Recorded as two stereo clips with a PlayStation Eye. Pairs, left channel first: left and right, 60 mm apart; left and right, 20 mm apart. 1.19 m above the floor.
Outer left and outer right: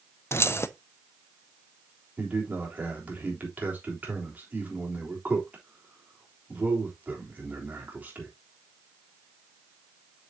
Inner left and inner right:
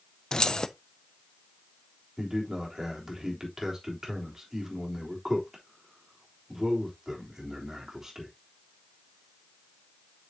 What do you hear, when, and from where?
0.3 s keys jangling: 45° left (ahead or behind), 0.6 m
2.2 s a man speaking: 30° right (ahead or behind), 3.5 m